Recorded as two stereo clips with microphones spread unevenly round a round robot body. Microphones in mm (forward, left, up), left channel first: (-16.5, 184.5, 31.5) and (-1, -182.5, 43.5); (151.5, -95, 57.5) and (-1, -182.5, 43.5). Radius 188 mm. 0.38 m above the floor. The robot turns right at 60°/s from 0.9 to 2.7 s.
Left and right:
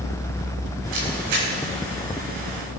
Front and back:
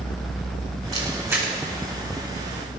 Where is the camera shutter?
100° right, 7.5 m; by 1.5 s 65° right, 7.5 m.